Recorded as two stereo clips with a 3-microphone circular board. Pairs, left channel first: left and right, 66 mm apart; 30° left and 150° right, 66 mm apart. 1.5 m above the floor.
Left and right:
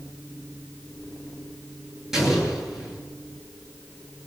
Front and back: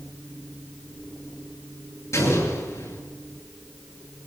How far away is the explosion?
About 8.5 m.